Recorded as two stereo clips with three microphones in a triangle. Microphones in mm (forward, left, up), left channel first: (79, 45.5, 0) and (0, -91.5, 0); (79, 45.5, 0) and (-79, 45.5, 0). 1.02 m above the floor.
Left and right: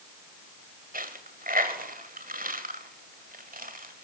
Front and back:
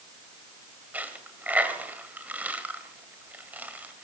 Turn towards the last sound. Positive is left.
turn(degrees=-100)